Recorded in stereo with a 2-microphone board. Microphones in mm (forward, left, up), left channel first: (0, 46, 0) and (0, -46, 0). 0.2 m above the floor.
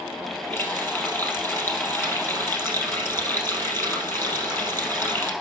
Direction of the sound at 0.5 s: 25° left (ahead or behind).